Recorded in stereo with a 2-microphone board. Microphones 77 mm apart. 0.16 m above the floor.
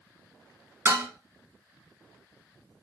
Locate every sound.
0.8 s dishes clattering: 30° right (ahead or behind), 0.9 m